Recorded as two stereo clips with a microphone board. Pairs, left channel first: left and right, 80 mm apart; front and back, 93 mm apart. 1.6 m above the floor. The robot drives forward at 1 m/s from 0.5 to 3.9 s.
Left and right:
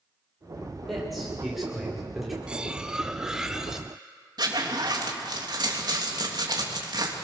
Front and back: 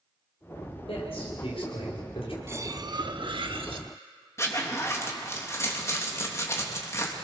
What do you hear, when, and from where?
0.9 s a man speaking: straight ahead, 7 m
2.5 s cutlery clinking: 155° right, 0.7 m; by 3.9 s 175° right, 1.8 m
4.4 s a zipper: 60° right, 3 m